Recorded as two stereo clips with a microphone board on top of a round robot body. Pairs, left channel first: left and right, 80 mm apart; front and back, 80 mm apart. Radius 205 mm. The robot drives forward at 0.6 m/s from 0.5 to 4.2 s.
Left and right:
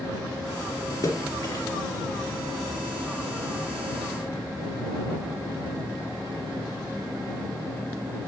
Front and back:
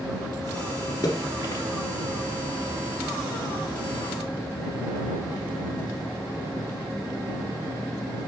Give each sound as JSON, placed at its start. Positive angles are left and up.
{"t": 1.0, "sound": "a splash", "azimuth_deg": 45, "distance_m": 3.5}